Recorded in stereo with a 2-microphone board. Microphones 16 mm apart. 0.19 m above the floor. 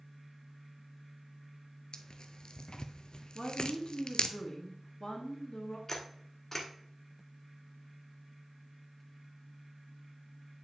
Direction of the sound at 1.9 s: 55° left (ahead or behind).